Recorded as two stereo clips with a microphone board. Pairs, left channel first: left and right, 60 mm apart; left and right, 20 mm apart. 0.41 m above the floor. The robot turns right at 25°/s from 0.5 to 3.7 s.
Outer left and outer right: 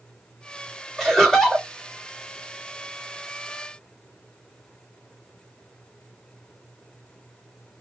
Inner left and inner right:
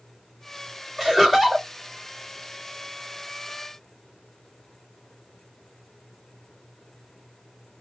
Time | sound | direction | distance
1.0 | laughter | 5° left (ahead or behind) | 1.3 m